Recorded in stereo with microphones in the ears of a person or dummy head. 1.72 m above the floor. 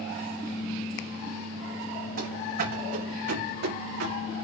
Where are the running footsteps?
60° right (ahead or behind), 6 m; by 4.3 s 65° right (ahead or behind), 7 m.